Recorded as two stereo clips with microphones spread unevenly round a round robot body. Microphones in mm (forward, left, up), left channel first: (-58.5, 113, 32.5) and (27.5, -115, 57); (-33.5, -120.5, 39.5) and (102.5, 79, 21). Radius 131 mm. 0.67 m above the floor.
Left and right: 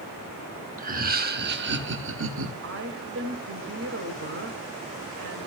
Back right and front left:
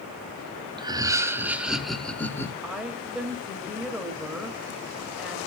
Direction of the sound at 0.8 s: 10° right.